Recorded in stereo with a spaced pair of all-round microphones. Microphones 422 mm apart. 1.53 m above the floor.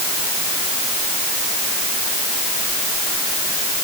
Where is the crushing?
I don't hear crushing.